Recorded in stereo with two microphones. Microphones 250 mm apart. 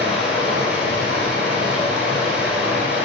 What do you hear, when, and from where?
0.0 s running water: 5° right (ahead or behind), 1.3 m